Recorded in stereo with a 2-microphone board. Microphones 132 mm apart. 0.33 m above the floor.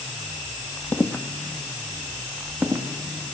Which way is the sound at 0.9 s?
20° left (ahead or behind).